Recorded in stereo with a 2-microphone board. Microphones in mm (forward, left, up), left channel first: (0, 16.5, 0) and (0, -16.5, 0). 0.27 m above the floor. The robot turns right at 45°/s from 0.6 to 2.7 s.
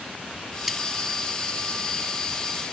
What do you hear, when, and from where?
0.7 s cutlery clinking: 10° right (ahead or behind); by 0.8 s 5° right (ahead or behind)